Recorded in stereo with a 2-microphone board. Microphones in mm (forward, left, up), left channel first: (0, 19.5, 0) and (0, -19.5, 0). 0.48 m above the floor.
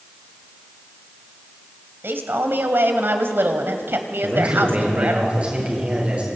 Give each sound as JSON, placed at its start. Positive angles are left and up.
{"t": 2.0, "sound": "a man speaking", "side_deg": -70, "distance_m": 2.5}
{"t": 4.2, "sound": "a man speaking", "side_deg": -30, "distance_m": 9.0}